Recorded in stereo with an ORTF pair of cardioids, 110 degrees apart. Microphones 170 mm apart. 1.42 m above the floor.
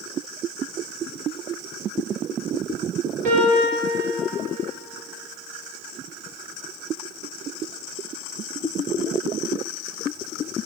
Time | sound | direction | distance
3.2 | a piano | 55° right | 5 m